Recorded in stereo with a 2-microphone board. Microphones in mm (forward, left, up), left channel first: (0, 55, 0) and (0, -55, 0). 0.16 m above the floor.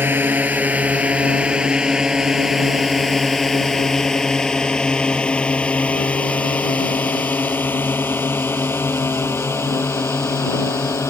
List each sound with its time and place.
0.0 s a drone: 20° right (ahead or behind); by 11.1 s 25° left (ahead or behind)